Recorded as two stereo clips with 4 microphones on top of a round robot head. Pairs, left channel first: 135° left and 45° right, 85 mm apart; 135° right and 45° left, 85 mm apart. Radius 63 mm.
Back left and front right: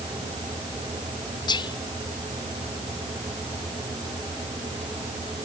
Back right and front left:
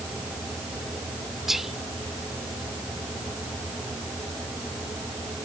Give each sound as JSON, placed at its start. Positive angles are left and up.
{"t": 1.5, "sound": "whispering", "azimuth_deg": 130}